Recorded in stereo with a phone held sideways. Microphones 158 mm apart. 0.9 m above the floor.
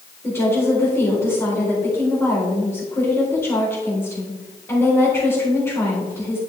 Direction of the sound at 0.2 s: 15° left (ahead or behind).